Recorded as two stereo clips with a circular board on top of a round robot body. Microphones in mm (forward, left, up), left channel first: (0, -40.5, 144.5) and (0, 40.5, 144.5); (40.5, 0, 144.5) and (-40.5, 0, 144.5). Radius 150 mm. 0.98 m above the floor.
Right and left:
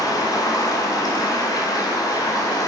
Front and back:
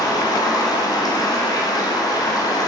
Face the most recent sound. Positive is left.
turn(degrees=-45)